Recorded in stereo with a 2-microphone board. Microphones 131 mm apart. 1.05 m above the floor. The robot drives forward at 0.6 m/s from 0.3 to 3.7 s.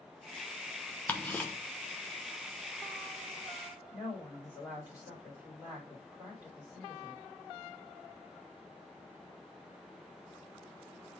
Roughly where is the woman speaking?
Centre.